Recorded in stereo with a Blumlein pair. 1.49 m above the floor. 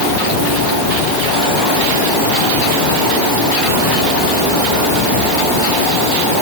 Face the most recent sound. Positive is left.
No sound to turn to.